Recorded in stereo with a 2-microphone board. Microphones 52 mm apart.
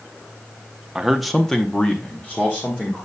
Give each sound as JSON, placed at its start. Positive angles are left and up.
{"t": 0.9, "sound": "a man speaking", "side_deg": -10, "distance_m": 0.7}